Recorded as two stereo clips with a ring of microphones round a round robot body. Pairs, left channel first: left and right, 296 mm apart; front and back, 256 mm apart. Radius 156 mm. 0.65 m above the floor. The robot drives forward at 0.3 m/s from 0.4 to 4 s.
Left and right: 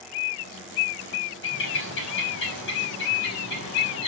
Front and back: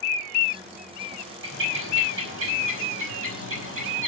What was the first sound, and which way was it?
A bird, 140° left.